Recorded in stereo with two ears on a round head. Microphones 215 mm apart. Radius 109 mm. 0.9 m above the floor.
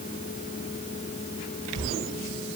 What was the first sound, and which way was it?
Only background noise.